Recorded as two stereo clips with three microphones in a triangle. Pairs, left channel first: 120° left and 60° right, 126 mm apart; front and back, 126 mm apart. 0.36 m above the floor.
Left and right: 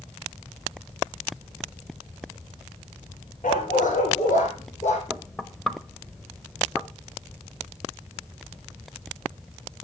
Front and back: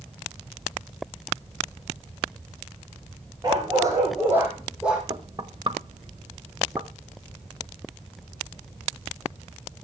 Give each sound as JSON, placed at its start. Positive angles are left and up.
{"t": 3.4, "sound": "a dog barking", "azimuth_deg": 120, "distance_m": 5.0}
{"t": 5.1, "sound": "knocking", "azimuth_deg": -155, "distance_m": 1.1}